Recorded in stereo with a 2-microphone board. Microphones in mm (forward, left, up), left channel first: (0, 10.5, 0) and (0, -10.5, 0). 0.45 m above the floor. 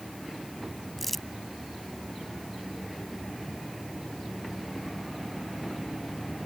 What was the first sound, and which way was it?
Crumpling, 10° left (ahead or behind).